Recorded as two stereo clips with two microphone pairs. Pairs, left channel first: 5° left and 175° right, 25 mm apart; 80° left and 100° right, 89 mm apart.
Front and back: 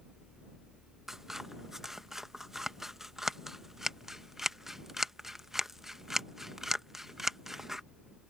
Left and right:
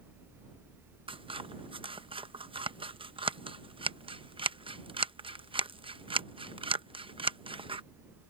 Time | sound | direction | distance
1.1 | scissors | 100° right | ?